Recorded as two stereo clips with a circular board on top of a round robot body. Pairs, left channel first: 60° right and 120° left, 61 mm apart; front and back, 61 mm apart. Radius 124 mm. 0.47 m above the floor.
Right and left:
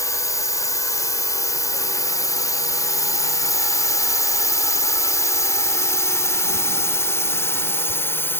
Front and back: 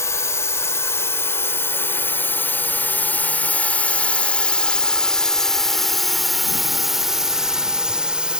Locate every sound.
0.0 s a drone: 35° right; by 8.4 s 110° right